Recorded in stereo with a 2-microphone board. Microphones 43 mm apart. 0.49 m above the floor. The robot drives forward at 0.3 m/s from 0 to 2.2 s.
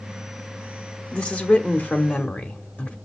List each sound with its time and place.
1.1 s a woman speaking: 35° left (ahead or behind), 1.1 m; by 3.0 s 40° left (ahead or behind), 1.0 m